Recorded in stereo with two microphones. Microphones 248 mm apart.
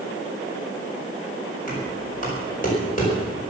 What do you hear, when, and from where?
1.7 s knocking: 35° left (ahead or behind), 5 m